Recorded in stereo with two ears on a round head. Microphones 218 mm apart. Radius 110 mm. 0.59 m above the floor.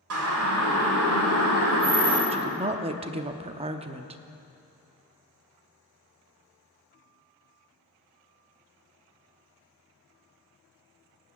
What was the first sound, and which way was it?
A siren, 65° right (ahead or behind).